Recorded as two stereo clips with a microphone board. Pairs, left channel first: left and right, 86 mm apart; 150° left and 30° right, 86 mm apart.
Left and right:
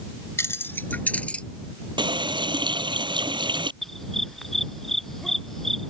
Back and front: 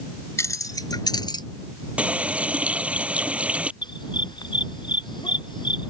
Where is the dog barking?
175° left.